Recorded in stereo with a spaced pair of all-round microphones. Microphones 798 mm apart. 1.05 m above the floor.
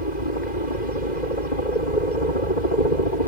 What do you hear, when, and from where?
0.0 s a helicopter: 60° left (ahead or behind)